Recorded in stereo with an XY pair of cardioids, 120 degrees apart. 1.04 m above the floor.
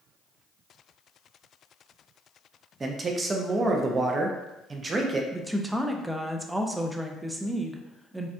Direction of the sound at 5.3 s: 10° right.